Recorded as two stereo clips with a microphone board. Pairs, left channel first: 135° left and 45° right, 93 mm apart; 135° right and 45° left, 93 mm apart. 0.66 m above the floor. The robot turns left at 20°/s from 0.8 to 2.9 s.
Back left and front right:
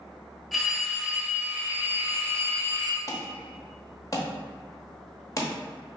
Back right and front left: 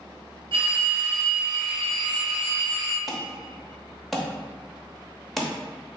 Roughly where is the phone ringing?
Ahead left.